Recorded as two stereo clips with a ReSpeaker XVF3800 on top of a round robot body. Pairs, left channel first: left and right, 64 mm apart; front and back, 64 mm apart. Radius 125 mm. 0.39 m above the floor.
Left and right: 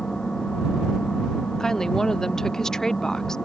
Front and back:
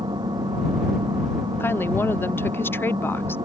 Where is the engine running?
170° left.